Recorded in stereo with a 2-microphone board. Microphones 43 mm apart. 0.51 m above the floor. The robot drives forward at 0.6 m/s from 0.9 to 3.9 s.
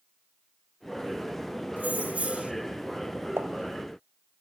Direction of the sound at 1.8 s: 45° right (ahead or behind).